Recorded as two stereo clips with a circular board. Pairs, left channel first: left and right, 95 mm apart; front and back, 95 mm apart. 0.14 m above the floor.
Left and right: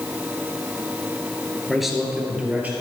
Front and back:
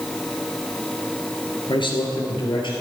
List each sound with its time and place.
1.7 s a man speaking: straight ahead, 2.5 m; by 2.7 s 20° right, 3.5 m